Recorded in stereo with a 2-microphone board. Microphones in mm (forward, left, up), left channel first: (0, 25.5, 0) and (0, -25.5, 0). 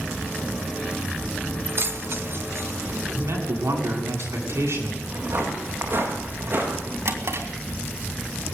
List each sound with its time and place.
1.6 s keys jangling: 50° right (ahead or behind), 0.9 m; by 3.0 s 70° right (ahead or behind), 2 m
3.1 s a man speaking: 75° right (ahead or behind), 8 m
5.0 s footsteps: 55° right (ahead or behind), 9 m; by 7.0 s 50° right (ahead or behind), 10 m
7.0 s a drawer: 70° right (ahead or behind), 3 m